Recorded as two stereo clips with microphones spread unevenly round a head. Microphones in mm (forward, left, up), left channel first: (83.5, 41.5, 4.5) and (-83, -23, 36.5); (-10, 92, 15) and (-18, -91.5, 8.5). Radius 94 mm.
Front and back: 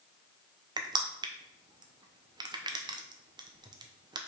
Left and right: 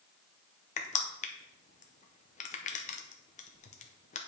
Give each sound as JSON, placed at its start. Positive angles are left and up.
{"t": 0.8, "sound": "crushing", "azimuth_deg": 130, "distance_m": 0.8}